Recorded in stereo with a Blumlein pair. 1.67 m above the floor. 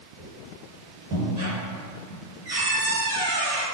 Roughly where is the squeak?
Ahead right.